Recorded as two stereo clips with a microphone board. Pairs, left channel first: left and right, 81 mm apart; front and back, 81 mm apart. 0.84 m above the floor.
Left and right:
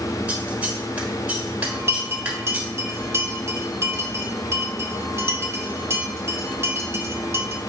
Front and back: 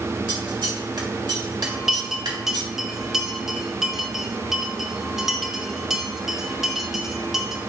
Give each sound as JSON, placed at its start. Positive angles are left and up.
{"t": 0.3, "sound": "scissors", "azimuth_deg": -165, "distance_m": 1.4}
{"t": 1.6, "sound": "a bell", "azimuth_deg": -100, "distance_m": 0.9}